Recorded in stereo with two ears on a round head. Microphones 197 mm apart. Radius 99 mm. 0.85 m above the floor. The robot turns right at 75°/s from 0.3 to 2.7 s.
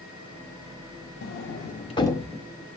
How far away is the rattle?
No rattle in this recording.